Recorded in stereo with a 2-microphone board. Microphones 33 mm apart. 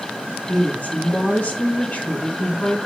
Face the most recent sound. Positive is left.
turn(degrees=40)  # may be behind; listen again after turning